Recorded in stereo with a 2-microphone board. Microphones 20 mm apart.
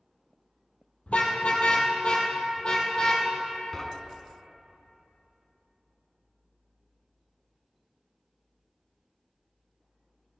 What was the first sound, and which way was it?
A car horn, 75° left (ahead or behind).